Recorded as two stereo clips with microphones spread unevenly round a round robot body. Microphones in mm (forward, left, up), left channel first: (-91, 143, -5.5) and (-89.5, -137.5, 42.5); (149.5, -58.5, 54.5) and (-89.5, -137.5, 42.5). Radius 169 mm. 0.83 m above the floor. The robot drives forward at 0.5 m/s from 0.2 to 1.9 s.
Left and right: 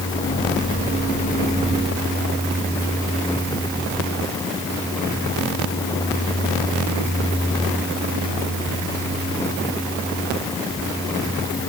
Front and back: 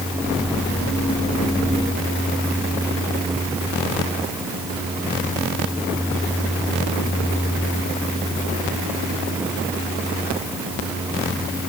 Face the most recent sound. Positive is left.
No sound to turn to.